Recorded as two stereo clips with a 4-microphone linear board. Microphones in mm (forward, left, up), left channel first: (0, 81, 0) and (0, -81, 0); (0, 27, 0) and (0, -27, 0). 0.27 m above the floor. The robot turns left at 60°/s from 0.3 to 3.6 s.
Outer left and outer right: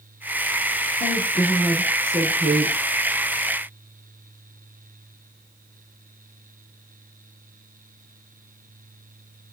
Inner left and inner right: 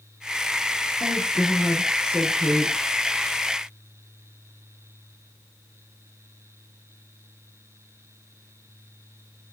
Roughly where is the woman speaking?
Ahead left.